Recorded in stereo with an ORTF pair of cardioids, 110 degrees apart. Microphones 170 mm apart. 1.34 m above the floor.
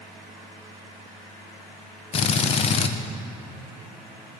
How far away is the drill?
About 0.6 m.